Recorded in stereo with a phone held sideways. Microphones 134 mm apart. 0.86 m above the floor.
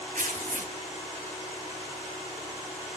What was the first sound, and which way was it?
Tearing paper, 75° right (ahead or behind).